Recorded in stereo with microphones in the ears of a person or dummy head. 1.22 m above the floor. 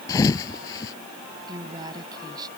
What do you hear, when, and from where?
0.1 s a thud: 20° left (ahead or behind)
1.5 s a woman speaking: 25° right (ahead or behind)